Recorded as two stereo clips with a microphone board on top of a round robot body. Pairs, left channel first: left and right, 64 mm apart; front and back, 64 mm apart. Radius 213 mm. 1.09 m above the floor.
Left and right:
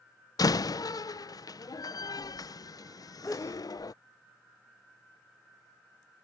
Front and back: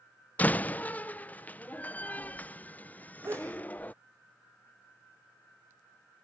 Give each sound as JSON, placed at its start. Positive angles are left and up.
{"t": 0.4, "sound": "a door slam", "azimuth_deg": 65}
{"t": 3.2, "sound": "a sneeze", "azimuth_deg": 135}